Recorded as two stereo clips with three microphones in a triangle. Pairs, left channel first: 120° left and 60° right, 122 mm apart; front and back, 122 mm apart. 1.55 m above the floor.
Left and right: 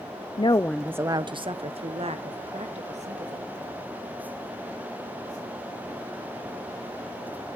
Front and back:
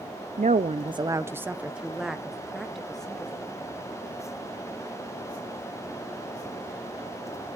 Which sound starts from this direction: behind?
A woman speaking, at 0.4 s.